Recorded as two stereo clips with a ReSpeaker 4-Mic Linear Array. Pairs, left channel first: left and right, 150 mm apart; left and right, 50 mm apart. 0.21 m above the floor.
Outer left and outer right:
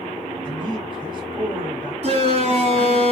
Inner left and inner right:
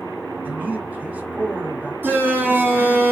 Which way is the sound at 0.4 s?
35° right (ahead or behind).